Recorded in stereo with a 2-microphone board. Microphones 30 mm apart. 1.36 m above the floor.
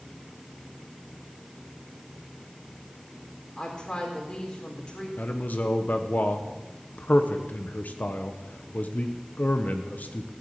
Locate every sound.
3.6 s a woman speaking: 30° left (ahead or behind), 4 m
5.2 s a man speaking: 65° left (ahead or behind), 1.0 m